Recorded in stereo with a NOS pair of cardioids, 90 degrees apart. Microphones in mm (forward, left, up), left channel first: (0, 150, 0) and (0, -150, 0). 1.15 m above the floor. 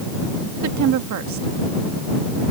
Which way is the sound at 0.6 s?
70° right.